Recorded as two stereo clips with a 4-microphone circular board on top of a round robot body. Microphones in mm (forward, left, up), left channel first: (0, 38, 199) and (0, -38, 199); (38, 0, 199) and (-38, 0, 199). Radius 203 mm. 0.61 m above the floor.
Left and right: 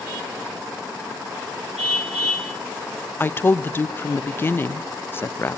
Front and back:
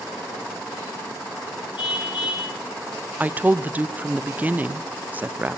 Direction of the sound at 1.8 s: 10° left.